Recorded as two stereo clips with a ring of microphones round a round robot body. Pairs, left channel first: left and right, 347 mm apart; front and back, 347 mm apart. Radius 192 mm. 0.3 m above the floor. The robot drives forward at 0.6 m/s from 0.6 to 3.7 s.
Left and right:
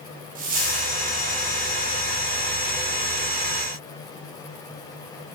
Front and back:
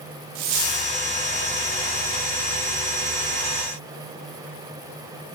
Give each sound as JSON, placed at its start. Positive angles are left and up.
{"t": 0.3, "sound": "a dropped coin", "azimuth_deg": -160, "distance_m": 9.5}